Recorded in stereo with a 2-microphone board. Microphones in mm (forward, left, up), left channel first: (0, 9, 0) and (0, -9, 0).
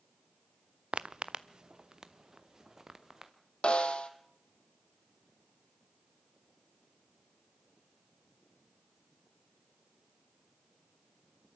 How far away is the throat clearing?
No throat clearing in this recording.